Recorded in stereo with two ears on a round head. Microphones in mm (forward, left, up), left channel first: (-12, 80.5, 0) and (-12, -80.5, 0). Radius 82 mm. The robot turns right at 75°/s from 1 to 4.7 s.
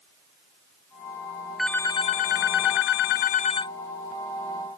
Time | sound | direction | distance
1.6 | a phone ringing | straight ahead | ?